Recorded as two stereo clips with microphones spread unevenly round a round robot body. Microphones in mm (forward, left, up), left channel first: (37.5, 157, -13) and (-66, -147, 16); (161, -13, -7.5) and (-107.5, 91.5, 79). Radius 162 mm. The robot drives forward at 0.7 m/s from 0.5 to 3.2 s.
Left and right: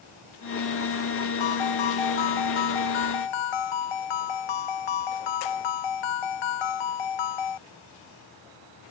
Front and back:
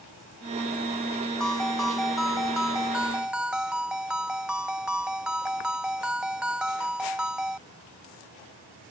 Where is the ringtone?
65° left; by 7.6 s 70° left.